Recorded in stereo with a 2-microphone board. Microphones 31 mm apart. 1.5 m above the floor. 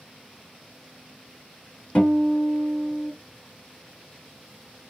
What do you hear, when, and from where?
1.9 s a guitar: 45° left (ahead or behind), 1.8 m